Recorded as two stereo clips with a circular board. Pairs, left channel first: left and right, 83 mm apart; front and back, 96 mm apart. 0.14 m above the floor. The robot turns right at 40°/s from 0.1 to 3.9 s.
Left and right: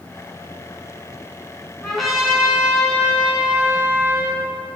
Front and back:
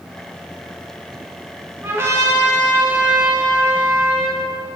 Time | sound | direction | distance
1.8 | a trumpet | 165° left | 1.1 m